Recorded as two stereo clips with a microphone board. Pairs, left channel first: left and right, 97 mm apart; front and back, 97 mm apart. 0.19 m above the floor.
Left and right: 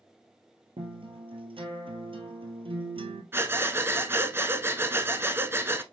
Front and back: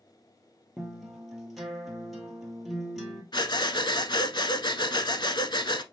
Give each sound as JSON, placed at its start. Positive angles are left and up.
{"t": 0.8, "sound": "a guitar", "azimuth_deg": -90, "distance_m": 1.4}
{"t": 3.3, "sound": "breathing", "azimuth_deg": -25, "distance_m": 0.6}